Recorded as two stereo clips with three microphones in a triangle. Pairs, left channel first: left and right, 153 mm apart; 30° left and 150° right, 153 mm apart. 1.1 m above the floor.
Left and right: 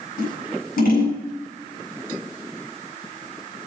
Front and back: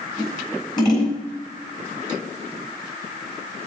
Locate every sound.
0.2 s scissors: 90° left, 9.5 m